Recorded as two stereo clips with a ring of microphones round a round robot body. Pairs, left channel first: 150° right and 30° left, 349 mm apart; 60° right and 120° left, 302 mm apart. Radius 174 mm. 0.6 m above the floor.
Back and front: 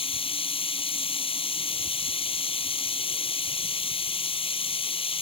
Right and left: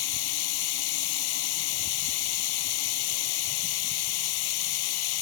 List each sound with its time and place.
0.0 s running water: 75° right